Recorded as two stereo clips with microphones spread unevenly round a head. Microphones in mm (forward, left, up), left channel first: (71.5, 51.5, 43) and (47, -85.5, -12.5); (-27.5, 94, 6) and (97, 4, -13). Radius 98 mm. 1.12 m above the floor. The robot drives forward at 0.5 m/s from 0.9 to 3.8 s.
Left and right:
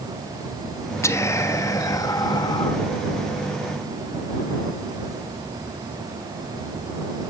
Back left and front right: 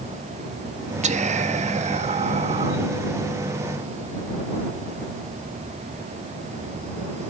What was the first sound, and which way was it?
Whispering, 5° left.